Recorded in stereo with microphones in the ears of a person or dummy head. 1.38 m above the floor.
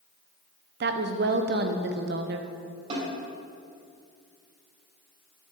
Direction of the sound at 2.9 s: 35° right (ahead or behind).